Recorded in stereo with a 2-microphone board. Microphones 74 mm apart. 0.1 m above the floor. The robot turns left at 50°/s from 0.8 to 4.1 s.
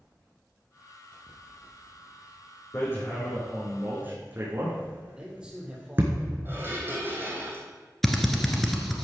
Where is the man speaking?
10° right (ahead or behind), 3 m.